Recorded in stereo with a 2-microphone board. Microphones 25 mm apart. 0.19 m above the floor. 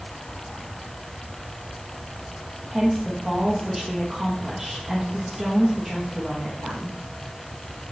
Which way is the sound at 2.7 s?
15° right (ahead or behind).